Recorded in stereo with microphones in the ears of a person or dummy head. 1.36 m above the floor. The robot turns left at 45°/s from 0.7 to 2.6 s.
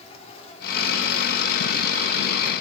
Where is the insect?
35° left, 2.5 m; by 2.6 s 55° right, 2.5 m.